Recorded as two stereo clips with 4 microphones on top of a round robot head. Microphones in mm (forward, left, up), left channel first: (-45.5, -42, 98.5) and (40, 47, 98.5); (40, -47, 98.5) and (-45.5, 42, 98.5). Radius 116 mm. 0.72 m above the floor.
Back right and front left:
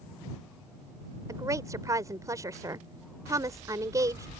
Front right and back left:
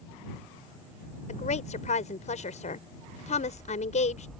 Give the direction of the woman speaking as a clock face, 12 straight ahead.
1 o'clock.